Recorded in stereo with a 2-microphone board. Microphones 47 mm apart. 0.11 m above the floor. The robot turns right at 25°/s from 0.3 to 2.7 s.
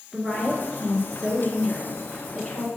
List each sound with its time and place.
0.1 s a woman speaking: straight ahead, 1.6 m; by 2.7 s 60° left, 1.6 m